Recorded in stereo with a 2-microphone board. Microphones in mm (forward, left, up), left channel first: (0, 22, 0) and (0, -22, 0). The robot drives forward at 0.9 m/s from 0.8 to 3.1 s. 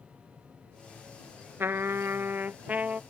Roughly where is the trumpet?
Right.